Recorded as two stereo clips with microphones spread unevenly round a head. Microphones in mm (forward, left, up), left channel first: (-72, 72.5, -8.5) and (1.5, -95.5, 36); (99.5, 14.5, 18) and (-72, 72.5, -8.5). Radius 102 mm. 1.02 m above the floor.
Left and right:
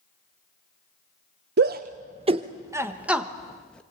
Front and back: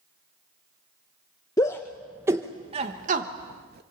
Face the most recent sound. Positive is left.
turn(degrees=-170)